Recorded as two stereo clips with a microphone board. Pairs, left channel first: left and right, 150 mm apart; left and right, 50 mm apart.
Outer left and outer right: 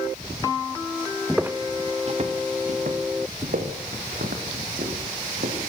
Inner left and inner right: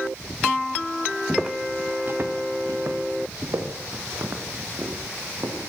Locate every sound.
1.3 s footsteps: centre (ahead or behind), 1.1 m; by 5.6 s 75° right (ahead or behind), 6.5 m